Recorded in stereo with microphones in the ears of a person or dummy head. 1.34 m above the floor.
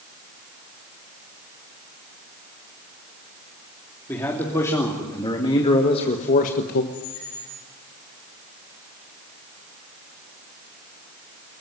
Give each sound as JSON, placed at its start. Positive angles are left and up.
{"t": 4.1, "sound": "a man speaking", "side_deg": 10, "distance_m": 3.0}
{"t": 6.9, "sound": "a squeak", "side_deg": 60, "distance_m": 2.5}